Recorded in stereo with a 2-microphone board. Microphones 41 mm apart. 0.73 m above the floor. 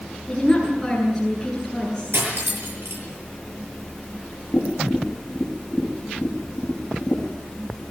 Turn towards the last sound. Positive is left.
turn(degrees=35)  # may be behind; listen again after turning